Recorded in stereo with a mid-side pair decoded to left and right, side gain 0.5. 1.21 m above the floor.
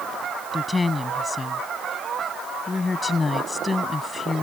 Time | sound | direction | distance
0.5 | a woman speaking | 20° left | ?